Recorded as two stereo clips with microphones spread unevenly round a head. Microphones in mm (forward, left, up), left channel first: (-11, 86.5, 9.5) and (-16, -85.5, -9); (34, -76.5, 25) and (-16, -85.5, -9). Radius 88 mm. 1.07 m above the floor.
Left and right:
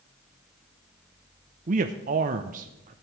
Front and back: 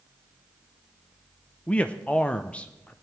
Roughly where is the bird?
No bird in this recording.